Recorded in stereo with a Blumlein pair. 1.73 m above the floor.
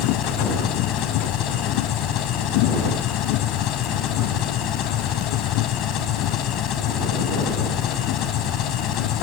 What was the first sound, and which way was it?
An engine running, 35° left.